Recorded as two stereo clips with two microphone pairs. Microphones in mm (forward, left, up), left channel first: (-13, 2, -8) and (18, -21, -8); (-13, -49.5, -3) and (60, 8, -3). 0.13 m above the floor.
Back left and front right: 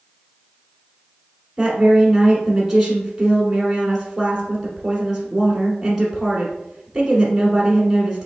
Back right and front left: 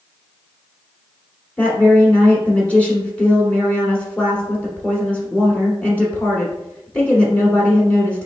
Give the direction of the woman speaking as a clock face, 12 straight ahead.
3 o'clock.